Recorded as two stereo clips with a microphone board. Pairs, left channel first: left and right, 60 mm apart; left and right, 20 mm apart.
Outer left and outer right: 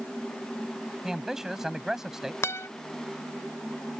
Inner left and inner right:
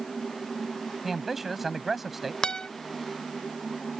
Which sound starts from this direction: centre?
A man speaking, at 1.0 s.